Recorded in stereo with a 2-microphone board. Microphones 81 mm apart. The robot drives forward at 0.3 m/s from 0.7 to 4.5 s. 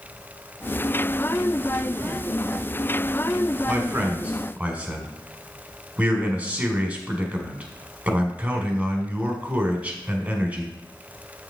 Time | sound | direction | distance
3.7 | a man speaking | 15° right (ahead or behind) | 1.4 m